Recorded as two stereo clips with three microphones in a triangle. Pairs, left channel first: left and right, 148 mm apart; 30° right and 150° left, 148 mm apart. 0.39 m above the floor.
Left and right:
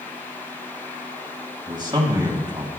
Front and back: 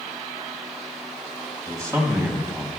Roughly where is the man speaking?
Behind right.